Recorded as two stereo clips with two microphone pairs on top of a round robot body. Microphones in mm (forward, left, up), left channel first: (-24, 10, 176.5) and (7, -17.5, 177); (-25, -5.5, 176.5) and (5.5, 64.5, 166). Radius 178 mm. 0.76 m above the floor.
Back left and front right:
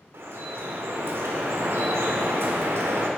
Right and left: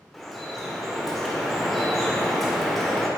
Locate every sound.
0.1 s dripping: 25° right, 1.5 m